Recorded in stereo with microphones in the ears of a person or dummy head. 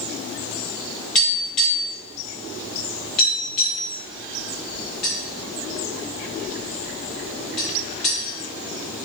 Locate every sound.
1.1 s tapping: 5° left (ahead or behind), 0.5 m